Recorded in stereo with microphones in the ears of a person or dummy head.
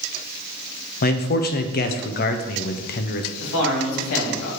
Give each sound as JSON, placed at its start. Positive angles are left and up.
{"t": 1.0, "sound": "a man speaking", "side_deg": 45, "distance_m": 0.6}
{"t": 3.4, "sound": "a man speaking", "side_deg": 80, "distance_m": 2.5}